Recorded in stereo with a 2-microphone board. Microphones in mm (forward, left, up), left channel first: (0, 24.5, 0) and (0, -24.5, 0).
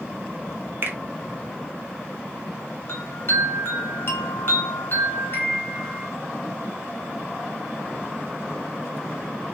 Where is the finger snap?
50° right (ahead or behind), 0.6 m.